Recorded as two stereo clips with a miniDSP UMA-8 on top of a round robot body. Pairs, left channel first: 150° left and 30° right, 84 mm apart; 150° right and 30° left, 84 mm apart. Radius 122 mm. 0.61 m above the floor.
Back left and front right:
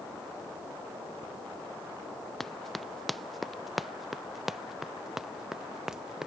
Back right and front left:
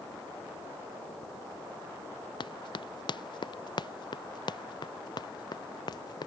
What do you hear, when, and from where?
2.4 s running footsteps: 120° right; by 6.3 s 110° right